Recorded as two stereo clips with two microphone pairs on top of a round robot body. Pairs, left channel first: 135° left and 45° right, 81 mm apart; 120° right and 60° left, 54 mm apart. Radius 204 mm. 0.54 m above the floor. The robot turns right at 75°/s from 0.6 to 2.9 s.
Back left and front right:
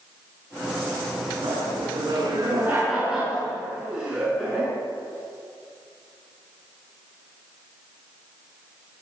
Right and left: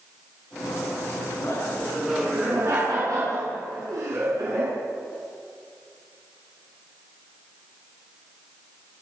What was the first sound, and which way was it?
Laughter, 70° right.